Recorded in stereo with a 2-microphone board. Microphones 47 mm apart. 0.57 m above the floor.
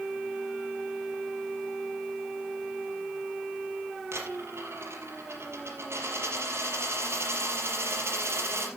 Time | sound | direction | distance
4.1 | a dropped coin | 65° right (ahead or behind) | 5 m